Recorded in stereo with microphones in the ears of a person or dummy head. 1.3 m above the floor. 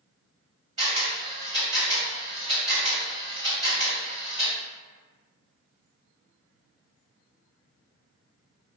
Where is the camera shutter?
35° right (ahead or behind), 1.6 m.